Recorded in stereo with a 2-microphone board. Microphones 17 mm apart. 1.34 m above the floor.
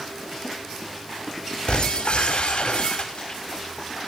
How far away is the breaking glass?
About 5.5 m.